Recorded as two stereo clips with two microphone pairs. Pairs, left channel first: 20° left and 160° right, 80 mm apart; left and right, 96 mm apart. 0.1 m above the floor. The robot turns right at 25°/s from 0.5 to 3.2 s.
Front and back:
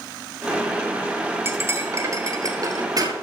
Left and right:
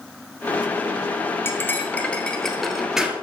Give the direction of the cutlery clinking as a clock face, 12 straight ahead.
7 o'clock.